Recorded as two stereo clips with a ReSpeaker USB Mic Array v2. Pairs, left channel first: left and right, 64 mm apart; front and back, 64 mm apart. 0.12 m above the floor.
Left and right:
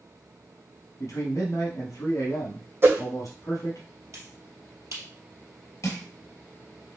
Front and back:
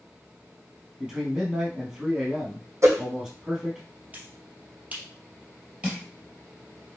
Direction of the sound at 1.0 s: 100° left.